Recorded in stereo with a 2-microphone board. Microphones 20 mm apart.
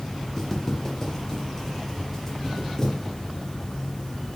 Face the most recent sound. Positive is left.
turn(degrees=25)  # may be behind; listen again after turning